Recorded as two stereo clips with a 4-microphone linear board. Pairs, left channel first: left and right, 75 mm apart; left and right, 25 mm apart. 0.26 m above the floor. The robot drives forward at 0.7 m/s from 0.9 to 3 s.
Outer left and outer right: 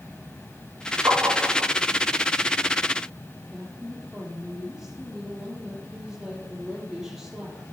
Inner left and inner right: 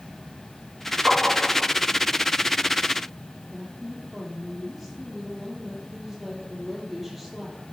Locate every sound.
1.1 s tapping: 40° right (ahead or behind), 7 m
3.5 s a woman speaking: 5° right (ahead or behind), 6.5 m